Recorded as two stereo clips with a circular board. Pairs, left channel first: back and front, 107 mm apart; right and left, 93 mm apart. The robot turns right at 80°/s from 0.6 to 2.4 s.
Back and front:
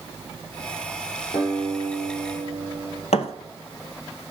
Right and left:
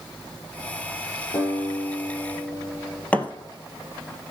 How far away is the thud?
About 1.2 m.